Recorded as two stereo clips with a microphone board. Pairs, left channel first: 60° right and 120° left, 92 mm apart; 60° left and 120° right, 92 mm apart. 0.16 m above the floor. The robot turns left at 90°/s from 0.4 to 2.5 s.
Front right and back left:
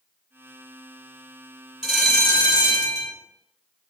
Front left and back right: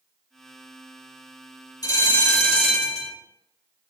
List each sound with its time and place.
1.8 s a bell: 40° left, 1.8 m; by 3.1 s 20° right, 1.8 m